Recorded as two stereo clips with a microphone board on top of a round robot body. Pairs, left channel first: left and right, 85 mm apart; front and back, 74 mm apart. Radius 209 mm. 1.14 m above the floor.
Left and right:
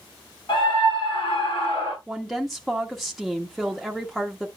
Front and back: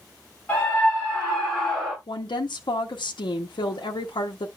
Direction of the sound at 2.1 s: Straight ahead.